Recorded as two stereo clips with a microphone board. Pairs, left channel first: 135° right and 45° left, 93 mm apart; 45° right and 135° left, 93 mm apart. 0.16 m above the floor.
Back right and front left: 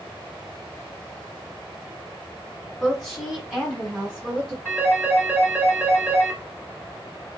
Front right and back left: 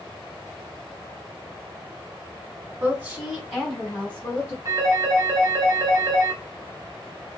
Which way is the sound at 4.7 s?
110° left.